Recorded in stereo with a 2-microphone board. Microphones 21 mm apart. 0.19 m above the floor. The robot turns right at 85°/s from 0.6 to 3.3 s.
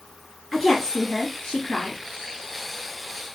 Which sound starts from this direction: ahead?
A woman speaking, at 0.5 s.